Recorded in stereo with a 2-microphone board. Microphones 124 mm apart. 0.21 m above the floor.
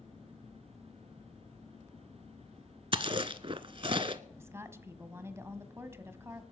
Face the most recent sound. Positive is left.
turn(degrees=-20)  # may be behind; listen again after turning